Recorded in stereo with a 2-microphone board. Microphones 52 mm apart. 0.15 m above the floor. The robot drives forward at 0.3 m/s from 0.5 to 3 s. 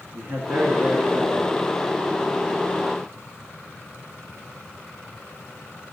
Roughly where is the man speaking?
Right.